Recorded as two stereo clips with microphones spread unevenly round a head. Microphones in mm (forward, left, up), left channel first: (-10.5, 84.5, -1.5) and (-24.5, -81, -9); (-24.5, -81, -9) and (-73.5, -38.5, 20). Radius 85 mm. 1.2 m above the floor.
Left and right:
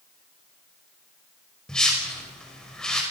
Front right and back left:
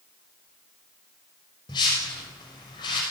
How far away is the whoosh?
About 5.5 m.